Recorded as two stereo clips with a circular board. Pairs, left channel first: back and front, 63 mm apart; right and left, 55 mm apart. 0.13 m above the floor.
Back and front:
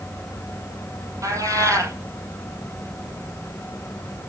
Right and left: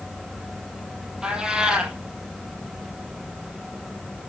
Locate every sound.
1.2 s a cat meowing: 15° left, 2 m